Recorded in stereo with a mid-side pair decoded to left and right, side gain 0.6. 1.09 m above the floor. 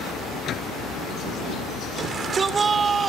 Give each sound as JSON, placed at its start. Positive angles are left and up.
{"t": 0.0, "sound": "a vehicle", "azimuth_deg": 50}
{"t": 2.0, "sound": "a shout", "azimuth_deg": -30}